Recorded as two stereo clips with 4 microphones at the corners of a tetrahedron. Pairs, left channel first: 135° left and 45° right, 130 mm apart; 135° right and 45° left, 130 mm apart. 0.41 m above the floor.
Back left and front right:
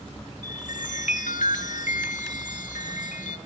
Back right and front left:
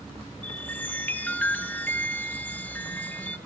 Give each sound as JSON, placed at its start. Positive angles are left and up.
{"t": 0.4, "sound": "a chime", "azimuth_deg": 150, "distance_m": 0.9}